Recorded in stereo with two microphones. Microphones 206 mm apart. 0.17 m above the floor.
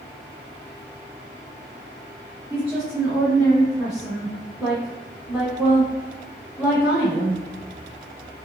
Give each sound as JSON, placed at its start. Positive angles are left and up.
{"t": 2.5, "sound": "a woman speaking", "side_deg": 0, "distance_m": 1.7}